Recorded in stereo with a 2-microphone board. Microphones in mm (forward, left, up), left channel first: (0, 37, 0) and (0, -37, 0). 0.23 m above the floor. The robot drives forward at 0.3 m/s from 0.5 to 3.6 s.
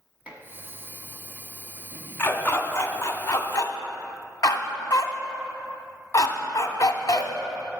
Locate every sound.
0.3 s dishes clattering: 20° right (ahead or behind), 1.2 m
2.2 s a dog barking: 30° left (ahead or behind), 0.8 m; by 7.3 s 50° left (ahead or behind), 0.5 m